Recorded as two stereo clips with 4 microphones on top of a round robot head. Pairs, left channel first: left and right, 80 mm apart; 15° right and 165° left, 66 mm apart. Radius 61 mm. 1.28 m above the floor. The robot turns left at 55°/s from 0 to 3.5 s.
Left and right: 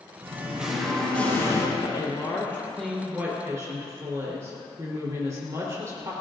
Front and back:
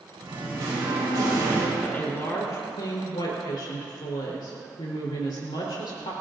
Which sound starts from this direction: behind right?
Singing, at 0.2 s.